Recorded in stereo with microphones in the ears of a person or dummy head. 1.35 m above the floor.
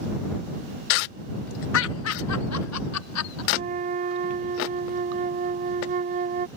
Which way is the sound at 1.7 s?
65° left (ahead or behind).